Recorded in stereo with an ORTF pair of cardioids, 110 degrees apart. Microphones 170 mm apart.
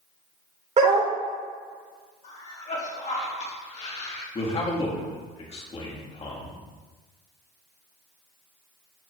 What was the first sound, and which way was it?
A dog barking, 40° right.